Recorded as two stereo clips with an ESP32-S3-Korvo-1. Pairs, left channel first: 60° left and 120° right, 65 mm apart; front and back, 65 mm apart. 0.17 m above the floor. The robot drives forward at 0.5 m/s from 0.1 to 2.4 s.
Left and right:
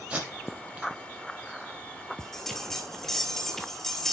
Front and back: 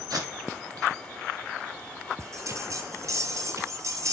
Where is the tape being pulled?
170° left, 4 m.